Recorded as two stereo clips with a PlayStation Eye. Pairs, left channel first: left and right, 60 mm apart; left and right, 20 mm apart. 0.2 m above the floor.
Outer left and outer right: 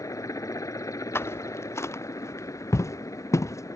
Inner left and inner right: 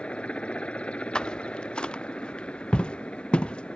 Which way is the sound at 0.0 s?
65° left (ahead or behind).